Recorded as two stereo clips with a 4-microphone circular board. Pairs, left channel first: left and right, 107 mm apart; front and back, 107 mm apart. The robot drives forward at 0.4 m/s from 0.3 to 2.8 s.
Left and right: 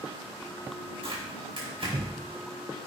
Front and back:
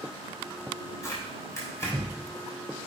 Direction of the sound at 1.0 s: 60° right.